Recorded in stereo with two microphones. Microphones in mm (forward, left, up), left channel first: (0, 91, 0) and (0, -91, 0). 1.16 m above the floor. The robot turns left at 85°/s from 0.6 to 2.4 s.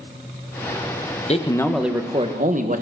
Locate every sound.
1.3 s a man speaking: 40° left, 1.2 m; by 2.8 s 50° right, 1.2 m